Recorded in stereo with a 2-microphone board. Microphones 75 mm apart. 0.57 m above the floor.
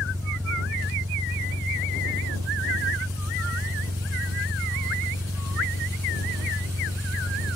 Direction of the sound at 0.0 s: 45° right (ahead or behind).